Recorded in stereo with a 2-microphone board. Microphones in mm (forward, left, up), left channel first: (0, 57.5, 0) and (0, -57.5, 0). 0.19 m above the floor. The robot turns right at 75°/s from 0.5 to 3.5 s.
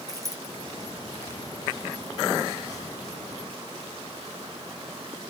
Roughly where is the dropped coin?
Right.